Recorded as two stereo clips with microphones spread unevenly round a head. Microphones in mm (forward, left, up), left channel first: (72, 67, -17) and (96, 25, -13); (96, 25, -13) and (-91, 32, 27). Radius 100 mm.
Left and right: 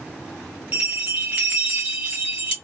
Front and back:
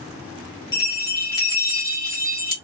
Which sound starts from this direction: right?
A bell, at 0.7 s.